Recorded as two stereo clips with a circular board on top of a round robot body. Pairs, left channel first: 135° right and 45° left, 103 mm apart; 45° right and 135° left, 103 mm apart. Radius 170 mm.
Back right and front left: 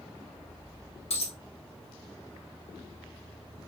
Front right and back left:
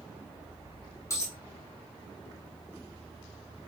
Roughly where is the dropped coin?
Right.